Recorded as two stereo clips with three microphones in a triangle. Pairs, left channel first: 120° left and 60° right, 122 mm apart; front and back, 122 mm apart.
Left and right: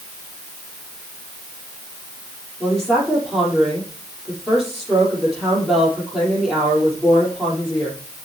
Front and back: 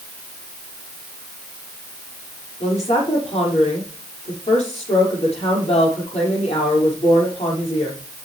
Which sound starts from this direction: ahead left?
A woman speaking, at 2.6 s.